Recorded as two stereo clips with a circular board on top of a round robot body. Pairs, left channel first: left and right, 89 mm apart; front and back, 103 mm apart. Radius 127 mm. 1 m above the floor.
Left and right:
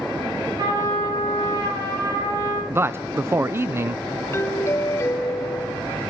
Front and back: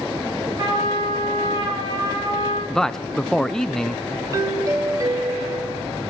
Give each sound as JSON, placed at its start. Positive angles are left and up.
{"t": 0.6, "sound": "a trumpet", "azimuth_deg": -130, "distance_m": 7.0}
{"t": 2.7, "sound": "a man speaking", "azimuth_deg": -80, "distance_m": 0.6}
{"t": 4.3, "sound": "a doorbell", "azimuth_deg": 140, "distance_m": 0.7}